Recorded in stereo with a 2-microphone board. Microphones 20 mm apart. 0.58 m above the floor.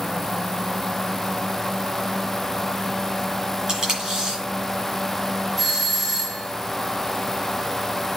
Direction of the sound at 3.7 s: 25° right (ahead or behind).